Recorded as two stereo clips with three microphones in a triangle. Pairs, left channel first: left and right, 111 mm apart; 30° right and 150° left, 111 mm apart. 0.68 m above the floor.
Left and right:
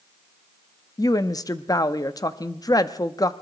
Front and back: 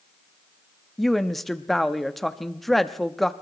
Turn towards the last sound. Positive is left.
turn(degrees=55)